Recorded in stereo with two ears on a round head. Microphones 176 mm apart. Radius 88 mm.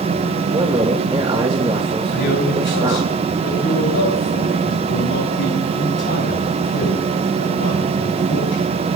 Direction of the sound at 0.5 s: 25° right (ahead or behind).